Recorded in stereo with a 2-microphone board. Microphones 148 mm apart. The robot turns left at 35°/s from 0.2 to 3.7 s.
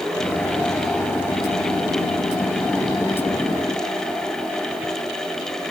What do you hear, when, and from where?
Only background noise.